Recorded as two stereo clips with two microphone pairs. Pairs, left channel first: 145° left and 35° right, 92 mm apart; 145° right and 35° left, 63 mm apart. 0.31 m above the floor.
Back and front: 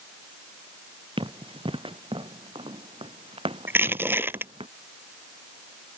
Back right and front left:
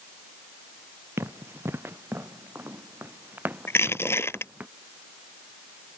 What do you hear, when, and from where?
1.2 s running footsteps: 10° right; by 4.7 s 35° right
3.7 s crushing: 100° right